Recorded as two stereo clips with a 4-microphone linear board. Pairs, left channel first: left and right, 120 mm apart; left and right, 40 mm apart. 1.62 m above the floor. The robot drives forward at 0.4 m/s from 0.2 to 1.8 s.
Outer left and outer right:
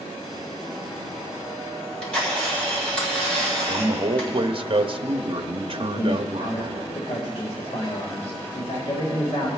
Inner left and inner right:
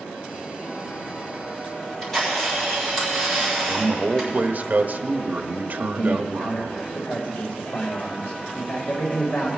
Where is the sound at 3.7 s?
50° right (ahead or behind), 0.6 m.